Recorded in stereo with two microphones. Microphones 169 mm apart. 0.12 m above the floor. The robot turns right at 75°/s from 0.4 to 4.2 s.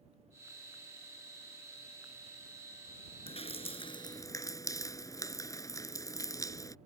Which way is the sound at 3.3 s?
75° left.